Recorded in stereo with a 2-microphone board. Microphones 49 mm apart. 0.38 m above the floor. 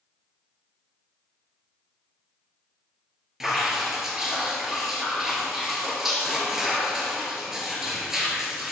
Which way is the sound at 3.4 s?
10° right (ahead or behind).